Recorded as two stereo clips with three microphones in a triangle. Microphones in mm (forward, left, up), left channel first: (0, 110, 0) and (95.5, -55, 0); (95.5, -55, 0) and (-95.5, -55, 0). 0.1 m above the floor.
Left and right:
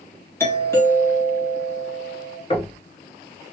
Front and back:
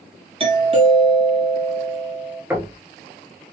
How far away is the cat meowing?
I don't hear a cat meowing.